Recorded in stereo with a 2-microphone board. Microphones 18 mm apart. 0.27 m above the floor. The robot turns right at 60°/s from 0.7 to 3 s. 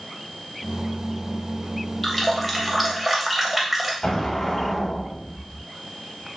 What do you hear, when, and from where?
2.0 s a running tap: 10° left (ahead or behind), 0.6 m; by 3.9 s 15° right (ahead or behind), 0.6 m
4.0 s an explosion: 40° left (ahead or behind), 0.7 m